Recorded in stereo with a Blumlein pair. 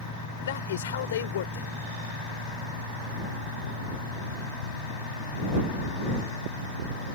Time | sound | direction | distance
0.4 | a man speaking | 60° left | ?